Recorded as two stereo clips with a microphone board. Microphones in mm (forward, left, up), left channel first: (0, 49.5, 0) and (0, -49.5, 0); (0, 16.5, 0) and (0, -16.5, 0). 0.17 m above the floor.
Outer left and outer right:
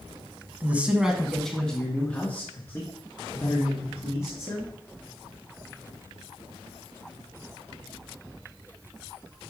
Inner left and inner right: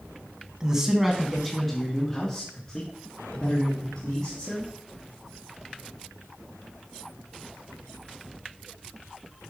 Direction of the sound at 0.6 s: 20° right (ahead or behind).